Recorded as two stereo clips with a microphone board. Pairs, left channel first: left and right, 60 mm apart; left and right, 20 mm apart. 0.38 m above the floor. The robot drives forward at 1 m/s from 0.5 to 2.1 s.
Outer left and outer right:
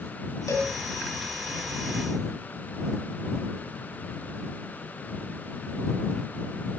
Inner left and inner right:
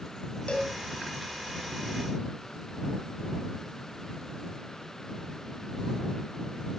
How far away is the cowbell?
About 2.5 m.